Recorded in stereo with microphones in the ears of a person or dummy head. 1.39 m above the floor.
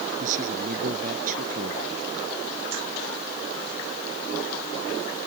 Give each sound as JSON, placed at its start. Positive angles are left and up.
{"t": 0.2, "sound": "a man speaking", "side_deg": -50}